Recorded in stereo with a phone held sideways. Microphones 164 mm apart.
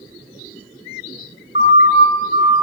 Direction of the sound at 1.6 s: 85° left.